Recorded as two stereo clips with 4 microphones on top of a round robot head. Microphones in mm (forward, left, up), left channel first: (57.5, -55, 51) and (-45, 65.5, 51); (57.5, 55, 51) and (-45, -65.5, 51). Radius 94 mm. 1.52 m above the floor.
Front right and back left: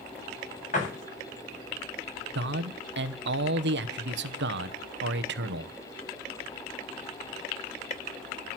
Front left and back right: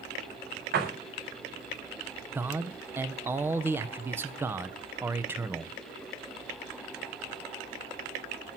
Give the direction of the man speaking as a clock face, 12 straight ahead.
7 o'clock.